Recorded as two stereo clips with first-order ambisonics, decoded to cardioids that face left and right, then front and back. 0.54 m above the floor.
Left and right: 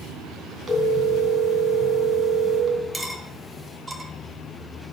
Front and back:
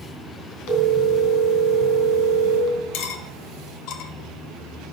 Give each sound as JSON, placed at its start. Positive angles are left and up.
{"t": 0.7, "sound": "a phone ringing", "azimuth_deg": -20, "distance_m": 3.0}
{"t": 2.9, "sound": "cutlery clinking", "azimuth_deg": -10, "distance_m": 1.4}